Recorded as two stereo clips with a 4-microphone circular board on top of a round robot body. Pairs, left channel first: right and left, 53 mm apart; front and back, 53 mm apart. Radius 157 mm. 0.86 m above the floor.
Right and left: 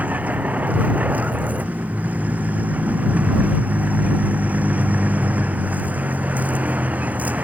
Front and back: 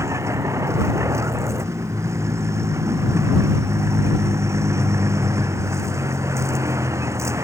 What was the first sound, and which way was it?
A vehicle, 150° left.